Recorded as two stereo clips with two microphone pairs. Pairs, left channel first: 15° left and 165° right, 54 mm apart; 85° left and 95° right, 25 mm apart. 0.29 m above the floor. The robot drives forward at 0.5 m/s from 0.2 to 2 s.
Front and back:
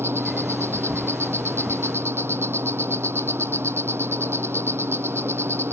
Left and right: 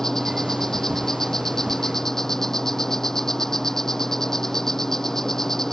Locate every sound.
0.0 s an insect: 160° left